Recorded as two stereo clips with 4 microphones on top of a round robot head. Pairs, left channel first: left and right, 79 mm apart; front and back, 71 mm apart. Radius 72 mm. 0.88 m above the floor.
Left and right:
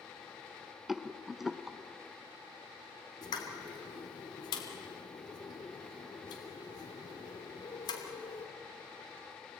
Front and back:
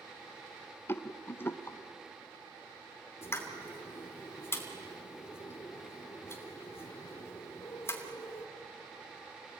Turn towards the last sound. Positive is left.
turn(degrees=55)